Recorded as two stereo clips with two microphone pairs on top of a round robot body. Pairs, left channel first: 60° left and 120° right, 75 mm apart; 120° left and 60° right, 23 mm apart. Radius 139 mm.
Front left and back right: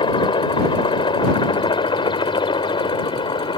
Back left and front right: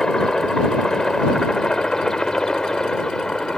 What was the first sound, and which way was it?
A helicopter, 60° left.